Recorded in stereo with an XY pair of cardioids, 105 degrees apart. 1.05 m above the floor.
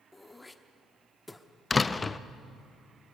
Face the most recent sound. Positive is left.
turn(degrees=20)